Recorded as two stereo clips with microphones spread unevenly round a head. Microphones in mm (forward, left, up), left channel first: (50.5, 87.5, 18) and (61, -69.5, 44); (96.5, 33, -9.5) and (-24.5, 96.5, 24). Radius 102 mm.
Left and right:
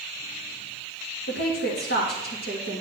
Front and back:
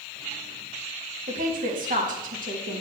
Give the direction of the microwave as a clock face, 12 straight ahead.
No microwave in this recording.